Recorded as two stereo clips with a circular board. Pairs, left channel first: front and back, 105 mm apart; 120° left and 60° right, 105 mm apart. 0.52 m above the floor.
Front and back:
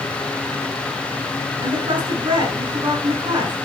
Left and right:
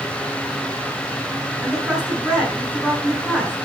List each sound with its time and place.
1.6 s a woman speaking: 140° right, 6 m